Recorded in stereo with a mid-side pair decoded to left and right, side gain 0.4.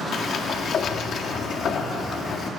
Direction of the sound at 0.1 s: 65° left.